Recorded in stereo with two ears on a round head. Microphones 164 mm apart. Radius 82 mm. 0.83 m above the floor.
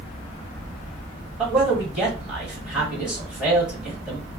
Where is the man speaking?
5° right (ahead or behind), 1.5 m.